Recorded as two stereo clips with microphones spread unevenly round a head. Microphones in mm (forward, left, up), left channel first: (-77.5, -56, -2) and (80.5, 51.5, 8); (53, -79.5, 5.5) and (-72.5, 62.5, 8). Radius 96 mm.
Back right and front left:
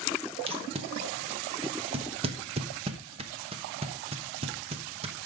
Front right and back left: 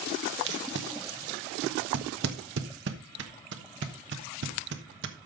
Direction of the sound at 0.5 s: 95° left.